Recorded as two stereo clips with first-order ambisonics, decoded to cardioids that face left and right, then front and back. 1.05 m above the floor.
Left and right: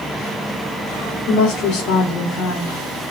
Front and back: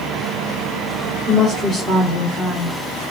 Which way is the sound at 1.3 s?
105° left.